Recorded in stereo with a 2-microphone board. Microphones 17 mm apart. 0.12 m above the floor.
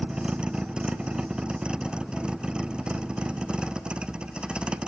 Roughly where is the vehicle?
Right.